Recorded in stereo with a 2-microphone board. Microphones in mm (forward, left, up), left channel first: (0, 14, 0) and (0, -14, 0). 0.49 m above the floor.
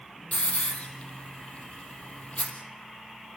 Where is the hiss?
50° left (ahead or behind), 3.5 m.